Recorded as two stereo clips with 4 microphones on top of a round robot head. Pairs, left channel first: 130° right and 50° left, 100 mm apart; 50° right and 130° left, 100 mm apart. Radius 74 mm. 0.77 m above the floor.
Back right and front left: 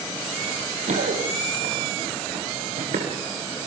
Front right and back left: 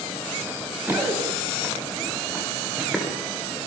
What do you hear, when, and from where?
0.5 s running footsteps: 65° left, 6 m; by 3.1 s 45° left, 6.5 m